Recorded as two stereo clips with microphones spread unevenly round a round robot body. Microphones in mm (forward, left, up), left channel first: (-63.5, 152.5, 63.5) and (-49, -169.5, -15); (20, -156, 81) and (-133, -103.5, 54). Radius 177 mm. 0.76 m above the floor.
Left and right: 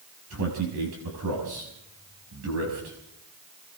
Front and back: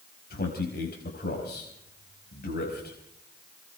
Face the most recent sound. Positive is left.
turn(degrees=-40)